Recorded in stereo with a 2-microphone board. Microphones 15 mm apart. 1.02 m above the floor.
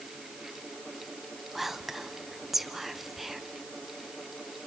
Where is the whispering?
15° right (ahead or behind), 0.7 m.